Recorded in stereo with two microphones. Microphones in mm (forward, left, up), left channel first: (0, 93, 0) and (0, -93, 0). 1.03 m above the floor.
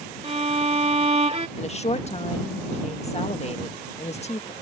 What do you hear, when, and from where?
0.2 s a violin: 35° right (ahead or behind)
1.6 s a woman speaking: 35° left (ahead or behind)